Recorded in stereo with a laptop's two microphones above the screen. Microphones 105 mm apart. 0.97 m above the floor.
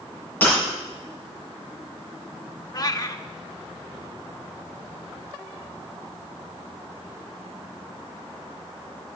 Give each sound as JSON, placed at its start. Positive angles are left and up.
{"t": 0.4, "sound": "breaking glass", "side_deg": 15, "distance_m": 6.5}
{"t": 2.7, "sound": "a cat meowing", "side_deg": 35, "distance_m": 0.8}